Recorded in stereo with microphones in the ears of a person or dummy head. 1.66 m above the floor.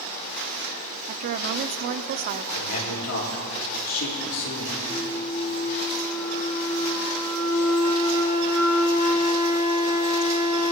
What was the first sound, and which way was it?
A woman speaking, 40° right (ahead or behind).